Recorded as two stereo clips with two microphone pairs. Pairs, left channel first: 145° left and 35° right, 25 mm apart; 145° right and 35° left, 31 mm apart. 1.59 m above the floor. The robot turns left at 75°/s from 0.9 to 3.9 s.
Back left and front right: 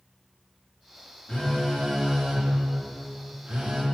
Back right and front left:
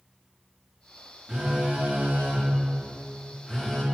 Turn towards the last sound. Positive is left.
turn(degrees=-85)